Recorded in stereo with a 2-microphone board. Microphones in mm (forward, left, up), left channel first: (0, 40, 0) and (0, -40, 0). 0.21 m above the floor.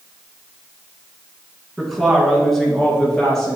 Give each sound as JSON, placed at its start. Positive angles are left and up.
{"t": 1.8, "sound": "a woman speaking", "side_deg": -5, "distance_m": 1.9}